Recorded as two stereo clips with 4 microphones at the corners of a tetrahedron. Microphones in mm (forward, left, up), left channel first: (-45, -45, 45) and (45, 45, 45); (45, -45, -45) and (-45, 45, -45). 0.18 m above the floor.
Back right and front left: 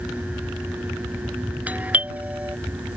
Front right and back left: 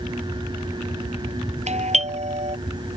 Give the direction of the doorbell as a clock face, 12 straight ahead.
8 o'clock.